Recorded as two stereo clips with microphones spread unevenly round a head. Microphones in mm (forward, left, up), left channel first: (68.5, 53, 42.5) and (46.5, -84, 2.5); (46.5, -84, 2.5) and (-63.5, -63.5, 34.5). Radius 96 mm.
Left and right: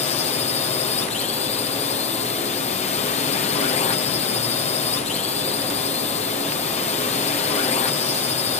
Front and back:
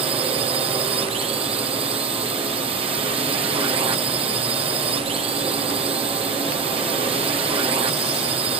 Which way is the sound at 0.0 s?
125° left.